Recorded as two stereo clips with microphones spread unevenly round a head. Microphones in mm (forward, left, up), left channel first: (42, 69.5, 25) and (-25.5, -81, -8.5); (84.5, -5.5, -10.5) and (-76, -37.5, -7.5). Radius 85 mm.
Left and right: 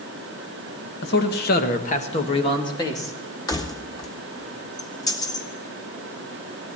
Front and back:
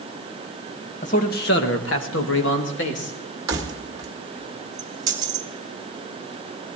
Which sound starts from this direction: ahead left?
A man speaking, at 1.0 s.